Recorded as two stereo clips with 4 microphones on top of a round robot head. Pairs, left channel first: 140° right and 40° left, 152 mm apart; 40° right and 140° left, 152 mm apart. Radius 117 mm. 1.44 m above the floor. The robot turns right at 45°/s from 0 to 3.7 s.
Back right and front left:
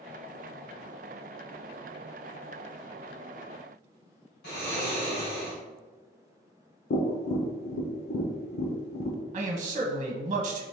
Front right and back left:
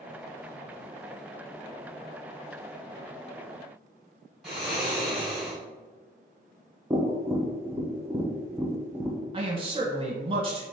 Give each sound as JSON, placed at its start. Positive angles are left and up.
{"t": 4.4, "sound": "snoring", "azimuth_deg": -130, "distance_m": 1.8}
{"t": 6.9, "sound": "tapping", "azimuth_deg": -145, "distance_m": 0.7}
{"t": 9.3, "sound": "a man speaking", "azimuth_deg": 85, "distance_m": 1.0}